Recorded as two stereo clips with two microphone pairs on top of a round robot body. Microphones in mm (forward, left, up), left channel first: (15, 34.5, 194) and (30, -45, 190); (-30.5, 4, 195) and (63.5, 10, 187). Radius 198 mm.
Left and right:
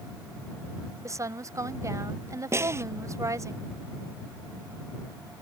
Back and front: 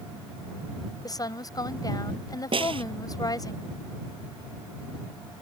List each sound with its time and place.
1.0 s a woman speaking: 125° right
2.5 s a snare drum: 20° right